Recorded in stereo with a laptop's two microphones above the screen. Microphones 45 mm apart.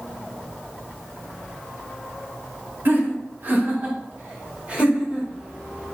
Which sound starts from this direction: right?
Laughter, at 2.9 s.